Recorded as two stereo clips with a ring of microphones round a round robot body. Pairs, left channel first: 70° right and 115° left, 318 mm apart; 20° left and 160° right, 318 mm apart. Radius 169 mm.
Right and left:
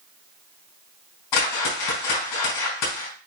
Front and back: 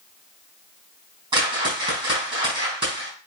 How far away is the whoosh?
About 4 m.